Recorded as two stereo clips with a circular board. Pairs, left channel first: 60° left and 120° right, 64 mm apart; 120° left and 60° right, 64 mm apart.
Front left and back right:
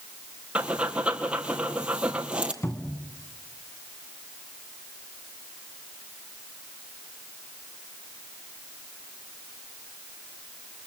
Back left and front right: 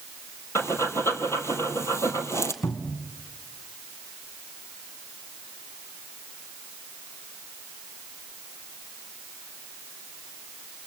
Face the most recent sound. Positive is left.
turn(degrees=100)